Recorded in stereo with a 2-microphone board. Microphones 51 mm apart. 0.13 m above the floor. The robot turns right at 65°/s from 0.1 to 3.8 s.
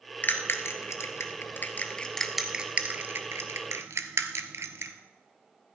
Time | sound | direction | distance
0.2 | a bell | 40° left (ahead or behind) | 1.0 m